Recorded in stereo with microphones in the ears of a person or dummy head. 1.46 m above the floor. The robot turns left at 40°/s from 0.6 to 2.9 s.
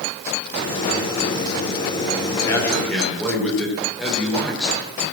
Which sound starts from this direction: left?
A man speaking, at 2.4 s.